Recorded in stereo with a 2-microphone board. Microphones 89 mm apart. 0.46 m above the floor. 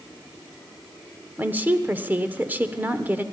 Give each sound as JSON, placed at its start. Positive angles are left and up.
{"t": 1.4, "sound": "a woman speaking", "side_deg": -20, "distance_m": 1.0}